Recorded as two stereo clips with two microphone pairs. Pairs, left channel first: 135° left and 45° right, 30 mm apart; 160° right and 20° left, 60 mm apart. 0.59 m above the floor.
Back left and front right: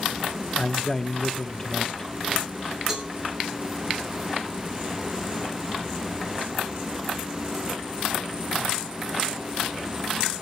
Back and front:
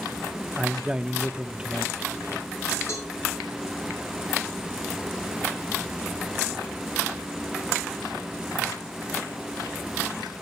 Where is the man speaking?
75° left, 0.9 m.